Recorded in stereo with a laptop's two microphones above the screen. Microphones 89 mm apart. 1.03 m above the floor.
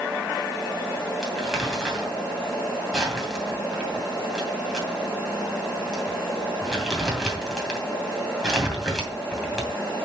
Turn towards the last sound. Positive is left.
turn(degrees=0)  # may be behind; listen again after turning